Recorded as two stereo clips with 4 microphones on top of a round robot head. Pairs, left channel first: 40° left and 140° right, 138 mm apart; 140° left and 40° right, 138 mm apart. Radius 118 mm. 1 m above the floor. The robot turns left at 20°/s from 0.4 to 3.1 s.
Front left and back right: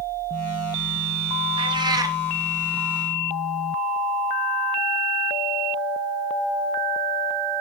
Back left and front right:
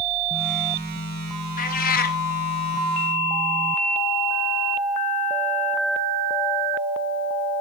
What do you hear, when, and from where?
1.6 s a cat meowing: 165° left, 1.0 m; by 2.2 s 150° left, 1.0 m